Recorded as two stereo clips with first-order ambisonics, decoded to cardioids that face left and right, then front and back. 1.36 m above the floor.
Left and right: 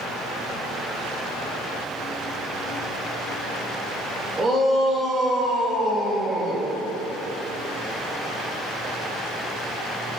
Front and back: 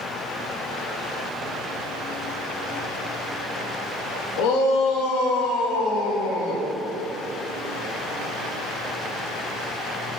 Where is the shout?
20° right, 1.9 m; by 6.7 s 10° left, 2.5 m.